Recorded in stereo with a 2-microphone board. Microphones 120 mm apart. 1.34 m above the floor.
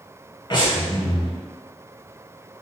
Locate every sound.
0.5 s breathing: 40° left (ahead or behind), 1.3 m